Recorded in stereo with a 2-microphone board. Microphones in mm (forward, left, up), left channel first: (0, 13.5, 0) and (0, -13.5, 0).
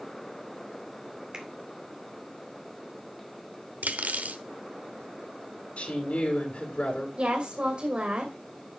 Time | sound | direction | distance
1.3 | a finger snap | 30° right (ahead or behind) | 2 m
3.8 | cutlery clinking | 80° right | 1.1 m
5.8 | a woman speaking | 60° left (ahead or behind) | 3.5 m
7.2 | a woman speaking | 45° right (ahead or behind) | 2.5 m